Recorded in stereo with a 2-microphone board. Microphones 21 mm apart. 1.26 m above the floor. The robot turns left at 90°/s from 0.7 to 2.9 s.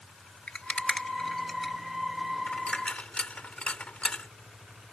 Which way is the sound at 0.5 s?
75° left (ahead or behind).